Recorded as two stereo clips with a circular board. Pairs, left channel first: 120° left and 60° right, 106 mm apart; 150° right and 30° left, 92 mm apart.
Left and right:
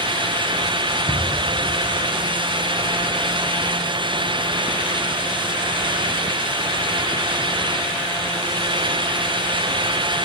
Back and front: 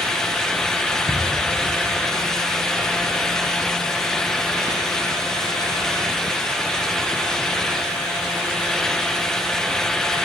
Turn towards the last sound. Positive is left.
turn(degrees=180)